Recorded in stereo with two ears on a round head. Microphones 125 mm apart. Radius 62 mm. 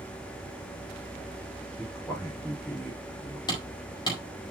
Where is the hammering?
30° left (ahead or behind), 4.5 m.